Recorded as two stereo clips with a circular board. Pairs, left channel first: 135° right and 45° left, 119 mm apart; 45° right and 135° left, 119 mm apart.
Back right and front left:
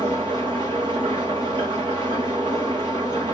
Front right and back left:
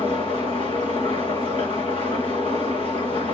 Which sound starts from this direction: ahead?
An engine running, at 0.0 s.